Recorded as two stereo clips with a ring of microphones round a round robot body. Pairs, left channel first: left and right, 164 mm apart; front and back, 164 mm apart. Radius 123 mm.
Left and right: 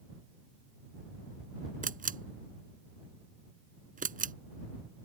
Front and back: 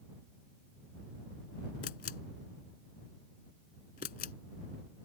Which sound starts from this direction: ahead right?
A camera shutter, at 1.8 s.